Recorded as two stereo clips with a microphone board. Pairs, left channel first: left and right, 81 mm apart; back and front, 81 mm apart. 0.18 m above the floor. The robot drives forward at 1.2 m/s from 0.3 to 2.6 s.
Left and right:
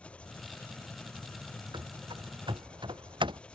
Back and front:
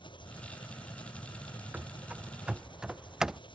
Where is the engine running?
165° left.